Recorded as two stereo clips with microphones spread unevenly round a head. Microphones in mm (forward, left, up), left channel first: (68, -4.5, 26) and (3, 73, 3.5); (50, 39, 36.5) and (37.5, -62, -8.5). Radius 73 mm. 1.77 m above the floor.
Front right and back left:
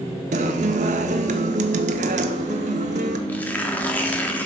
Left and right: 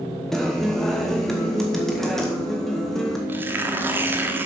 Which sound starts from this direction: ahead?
Tearing paper, at 3.3 s.